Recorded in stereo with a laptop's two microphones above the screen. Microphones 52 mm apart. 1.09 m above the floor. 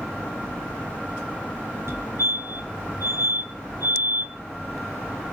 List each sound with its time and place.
1.9 s a fire alarm: 60° right (ahead or behind), 2.5 m